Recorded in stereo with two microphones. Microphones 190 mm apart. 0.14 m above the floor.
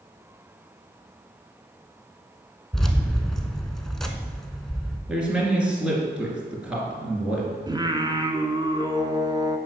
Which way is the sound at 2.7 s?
Centre (ahead or behind).